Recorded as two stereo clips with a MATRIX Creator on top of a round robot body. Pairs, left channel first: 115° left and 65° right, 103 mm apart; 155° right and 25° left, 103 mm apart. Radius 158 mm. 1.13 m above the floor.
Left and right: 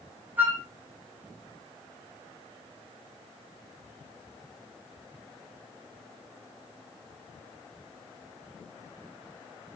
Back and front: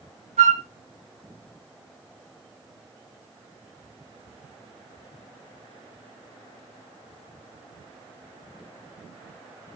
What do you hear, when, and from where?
0.4 s a flute: 5° left, 0.7 m